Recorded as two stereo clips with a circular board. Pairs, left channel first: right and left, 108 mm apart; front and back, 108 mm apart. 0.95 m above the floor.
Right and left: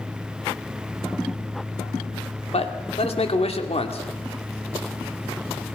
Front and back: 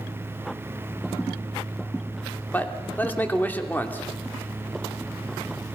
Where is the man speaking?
75° right, 2.5 m.